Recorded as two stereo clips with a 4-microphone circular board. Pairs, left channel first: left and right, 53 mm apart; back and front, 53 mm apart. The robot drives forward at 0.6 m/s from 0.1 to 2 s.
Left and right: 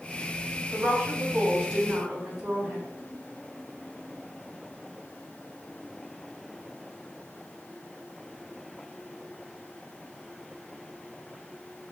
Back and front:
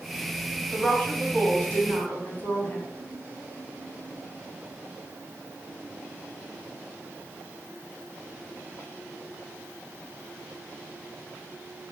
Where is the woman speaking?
140° right, 1.6 m; by 2.8 s 160° right, 2 m.